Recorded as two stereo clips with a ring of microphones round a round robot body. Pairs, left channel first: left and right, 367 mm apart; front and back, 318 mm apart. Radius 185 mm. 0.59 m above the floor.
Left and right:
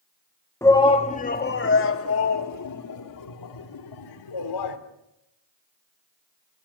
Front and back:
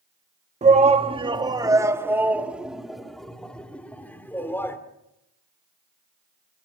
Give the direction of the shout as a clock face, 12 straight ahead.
7 o'clock.